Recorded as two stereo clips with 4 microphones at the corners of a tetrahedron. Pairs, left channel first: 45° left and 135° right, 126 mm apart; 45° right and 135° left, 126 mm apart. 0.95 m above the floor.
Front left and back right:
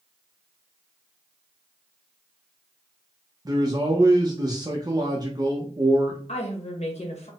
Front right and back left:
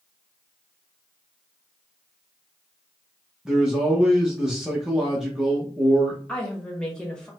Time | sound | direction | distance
3.5 | a man speaking | 145° right | 0.8 m
6.3 | a woman speaking | 35° left | 1.2 m